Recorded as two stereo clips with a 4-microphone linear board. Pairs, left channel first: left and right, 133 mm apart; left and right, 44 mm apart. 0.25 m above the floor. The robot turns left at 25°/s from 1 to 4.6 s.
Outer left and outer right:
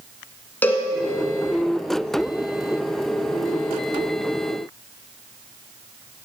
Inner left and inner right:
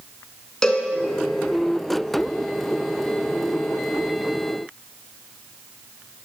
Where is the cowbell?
15° left (ahead or behind), 1.2 m.